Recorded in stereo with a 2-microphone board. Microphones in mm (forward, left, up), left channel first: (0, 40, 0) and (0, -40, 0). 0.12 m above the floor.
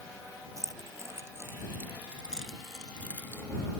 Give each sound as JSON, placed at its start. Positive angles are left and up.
{"t": 0.6, "sound": "keys jangling", "side_deg": -40}